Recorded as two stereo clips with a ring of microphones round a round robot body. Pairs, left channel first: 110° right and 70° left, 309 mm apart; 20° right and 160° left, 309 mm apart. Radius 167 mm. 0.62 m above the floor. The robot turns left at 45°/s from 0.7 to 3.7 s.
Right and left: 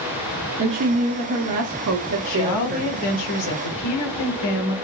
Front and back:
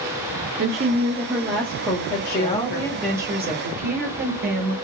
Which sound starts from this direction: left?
A woman speaking, at 0.6 s.